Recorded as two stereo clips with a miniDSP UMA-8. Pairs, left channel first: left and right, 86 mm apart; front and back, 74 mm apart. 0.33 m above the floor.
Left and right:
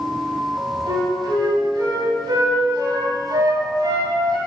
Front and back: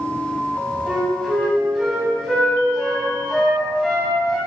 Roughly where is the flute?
Right.